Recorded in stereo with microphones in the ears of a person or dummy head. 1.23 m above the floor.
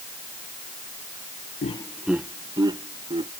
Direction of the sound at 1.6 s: 30° left (ahead or behind).